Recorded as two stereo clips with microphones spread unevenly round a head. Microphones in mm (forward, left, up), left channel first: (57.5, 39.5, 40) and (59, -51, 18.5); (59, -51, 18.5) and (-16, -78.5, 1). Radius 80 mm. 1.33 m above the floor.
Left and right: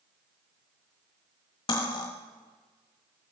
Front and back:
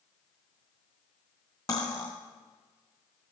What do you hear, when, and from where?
1.7 s cutlery clinking: 75° left, 1.3 m